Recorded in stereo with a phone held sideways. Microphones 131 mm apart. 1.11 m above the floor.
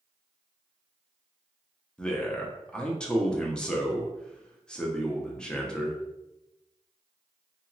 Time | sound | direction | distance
2.0 | a man speaking | 5° left (ahead or behind) | 0.6 m